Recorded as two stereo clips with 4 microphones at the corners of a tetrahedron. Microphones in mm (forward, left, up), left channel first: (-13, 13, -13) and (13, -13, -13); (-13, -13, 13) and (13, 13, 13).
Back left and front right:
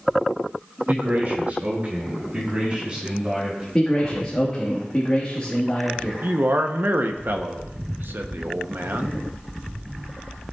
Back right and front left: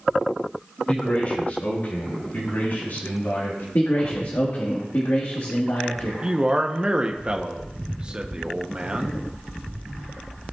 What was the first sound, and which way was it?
A man speaking, 80° right.